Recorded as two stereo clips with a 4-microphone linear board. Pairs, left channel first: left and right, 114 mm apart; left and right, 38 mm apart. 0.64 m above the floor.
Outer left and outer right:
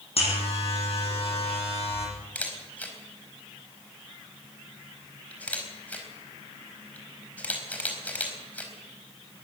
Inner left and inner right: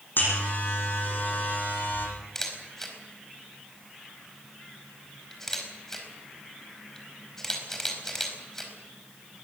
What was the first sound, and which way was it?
A buzzer, 60° left (ahead or behind).